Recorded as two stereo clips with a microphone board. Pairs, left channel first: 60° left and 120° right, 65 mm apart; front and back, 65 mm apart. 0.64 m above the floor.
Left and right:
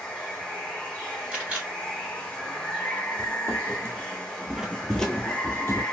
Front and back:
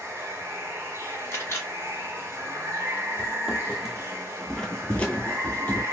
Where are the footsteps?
105° right, 1.0 m; by 5.8 s 45° left, 0.8 m.